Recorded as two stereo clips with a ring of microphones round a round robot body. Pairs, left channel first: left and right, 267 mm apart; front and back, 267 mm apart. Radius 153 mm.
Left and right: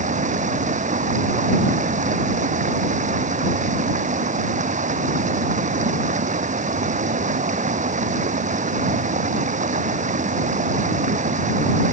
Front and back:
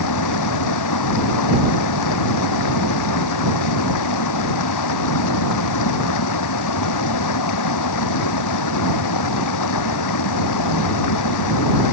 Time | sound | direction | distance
0.0 | running water | 25° right | ?